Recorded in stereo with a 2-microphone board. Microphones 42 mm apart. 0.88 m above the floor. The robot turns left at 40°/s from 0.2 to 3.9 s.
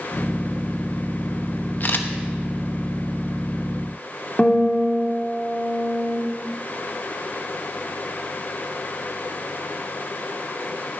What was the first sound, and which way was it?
A camera shutter, 45° left (ahead or behind).